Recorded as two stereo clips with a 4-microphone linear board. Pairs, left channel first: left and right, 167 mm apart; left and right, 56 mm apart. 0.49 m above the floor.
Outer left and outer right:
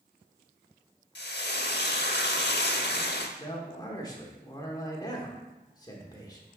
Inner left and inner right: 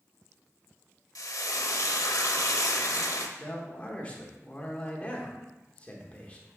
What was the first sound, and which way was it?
Frying, 85° left.